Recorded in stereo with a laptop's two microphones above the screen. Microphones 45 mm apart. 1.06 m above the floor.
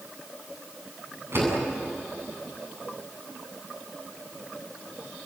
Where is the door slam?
55° right (ahead or behind), 8 m.